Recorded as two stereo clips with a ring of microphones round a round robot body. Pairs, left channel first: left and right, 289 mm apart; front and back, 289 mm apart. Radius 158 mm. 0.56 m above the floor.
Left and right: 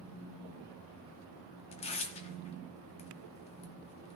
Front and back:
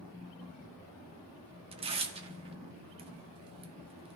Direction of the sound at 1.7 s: 135° left.